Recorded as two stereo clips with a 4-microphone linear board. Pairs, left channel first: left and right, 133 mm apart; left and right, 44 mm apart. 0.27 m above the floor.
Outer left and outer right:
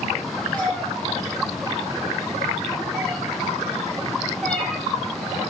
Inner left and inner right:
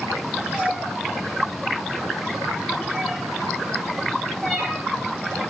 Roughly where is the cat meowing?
Centre.